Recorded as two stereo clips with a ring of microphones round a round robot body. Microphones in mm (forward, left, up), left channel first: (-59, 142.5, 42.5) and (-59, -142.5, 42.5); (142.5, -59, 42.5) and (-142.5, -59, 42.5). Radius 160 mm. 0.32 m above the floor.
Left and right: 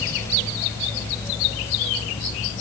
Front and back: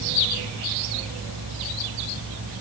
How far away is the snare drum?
I don't hear a snare drum.